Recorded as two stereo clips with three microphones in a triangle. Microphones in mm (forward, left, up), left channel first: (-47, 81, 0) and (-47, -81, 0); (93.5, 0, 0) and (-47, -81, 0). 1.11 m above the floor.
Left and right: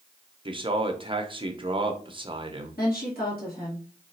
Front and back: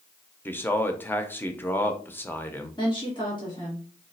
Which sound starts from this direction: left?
A woman speaking, at 2.8 s.